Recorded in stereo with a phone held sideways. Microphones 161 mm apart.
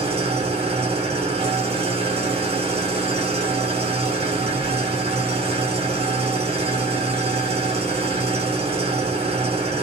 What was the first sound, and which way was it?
An engine running, 40° right (ahead or behind).